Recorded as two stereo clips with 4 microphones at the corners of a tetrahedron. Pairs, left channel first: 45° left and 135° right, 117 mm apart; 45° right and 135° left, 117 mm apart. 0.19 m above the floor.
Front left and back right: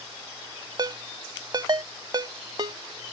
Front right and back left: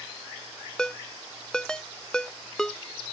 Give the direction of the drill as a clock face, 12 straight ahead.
I don't hear a drill.